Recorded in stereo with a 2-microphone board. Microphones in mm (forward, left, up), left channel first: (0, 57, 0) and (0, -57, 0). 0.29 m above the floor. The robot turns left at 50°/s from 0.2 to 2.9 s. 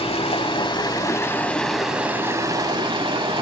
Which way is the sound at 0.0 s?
80° left.